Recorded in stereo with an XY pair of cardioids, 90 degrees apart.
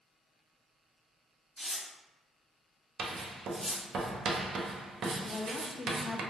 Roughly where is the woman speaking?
Ahead left.